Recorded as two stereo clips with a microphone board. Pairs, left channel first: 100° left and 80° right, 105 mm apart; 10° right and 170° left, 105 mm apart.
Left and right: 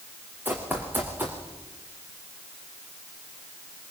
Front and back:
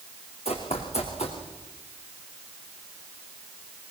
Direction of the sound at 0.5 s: 10° right.